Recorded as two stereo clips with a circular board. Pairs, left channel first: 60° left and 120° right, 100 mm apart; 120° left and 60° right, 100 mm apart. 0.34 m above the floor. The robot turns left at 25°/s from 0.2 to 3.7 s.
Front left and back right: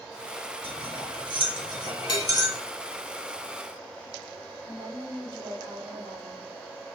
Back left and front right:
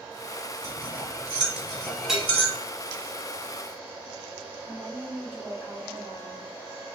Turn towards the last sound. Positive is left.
turn(degrees=-125)